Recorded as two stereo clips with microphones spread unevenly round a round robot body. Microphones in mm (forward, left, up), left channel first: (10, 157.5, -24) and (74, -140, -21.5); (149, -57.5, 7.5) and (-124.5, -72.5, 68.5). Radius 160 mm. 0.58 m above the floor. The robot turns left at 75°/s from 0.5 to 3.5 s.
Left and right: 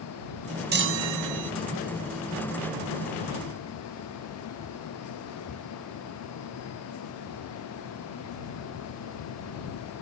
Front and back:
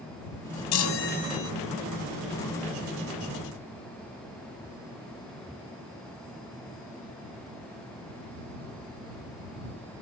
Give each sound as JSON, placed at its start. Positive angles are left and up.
{"t": 0.7, "sound": "a chime", "azimuth_deg": -20}